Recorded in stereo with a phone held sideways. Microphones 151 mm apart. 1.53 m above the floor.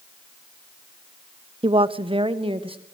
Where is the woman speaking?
35° right (ahead or behind), 0.6 m.